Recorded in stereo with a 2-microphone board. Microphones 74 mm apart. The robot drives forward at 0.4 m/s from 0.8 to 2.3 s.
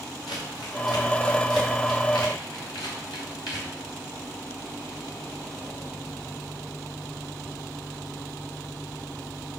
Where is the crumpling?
70° left (ahead or behind), 3.5 m; by 3.7 s 80° left, 3 m.